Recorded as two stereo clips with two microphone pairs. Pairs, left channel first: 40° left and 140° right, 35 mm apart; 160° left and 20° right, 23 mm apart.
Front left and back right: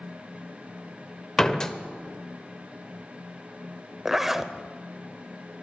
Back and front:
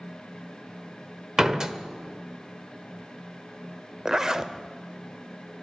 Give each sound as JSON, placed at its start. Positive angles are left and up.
{"t": 1.4, "sound": "a door slam", "azimuth_deg": -15, "distance_m": 1.0}
{"t": 4.0, "sound": "a zipper", "azimuth_deg": -65, "distance_m": 0.7}